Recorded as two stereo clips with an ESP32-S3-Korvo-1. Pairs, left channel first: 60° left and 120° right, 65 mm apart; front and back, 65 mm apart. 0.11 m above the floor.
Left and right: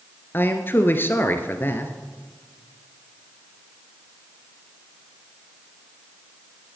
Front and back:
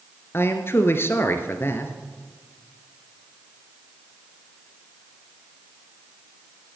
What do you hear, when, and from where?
0.3 s a man speaking: 25° left, 1.4 m